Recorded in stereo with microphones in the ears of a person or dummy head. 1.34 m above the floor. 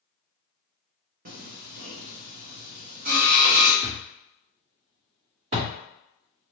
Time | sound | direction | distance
1.2 | singing | 55° right (ahead or behind) | 0.9 m
3.8 | a thud | 35° right (ahead or behind) | 1.7 m